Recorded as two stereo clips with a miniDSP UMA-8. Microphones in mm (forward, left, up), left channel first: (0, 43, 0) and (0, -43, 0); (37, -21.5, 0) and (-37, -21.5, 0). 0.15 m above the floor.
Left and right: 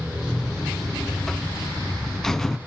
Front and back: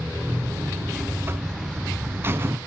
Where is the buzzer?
170° left, 0.5 m.